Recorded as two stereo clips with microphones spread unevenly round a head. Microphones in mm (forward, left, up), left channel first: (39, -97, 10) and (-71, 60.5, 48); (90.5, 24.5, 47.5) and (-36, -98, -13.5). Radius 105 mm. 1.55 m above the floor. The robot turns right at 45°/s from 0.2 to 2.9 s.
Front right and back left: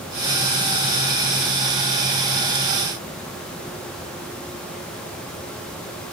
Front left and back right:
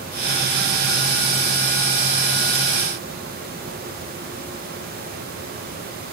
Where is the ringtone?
I don't hear a ringtone.